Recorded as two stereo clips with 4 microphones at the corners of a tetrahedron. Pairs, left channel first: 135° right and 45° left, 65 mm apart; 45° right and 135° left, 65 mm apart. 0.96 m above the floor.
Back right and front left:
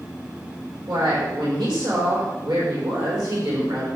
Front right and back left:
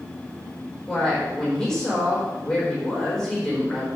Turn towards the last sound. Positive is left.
turn(degrees=35)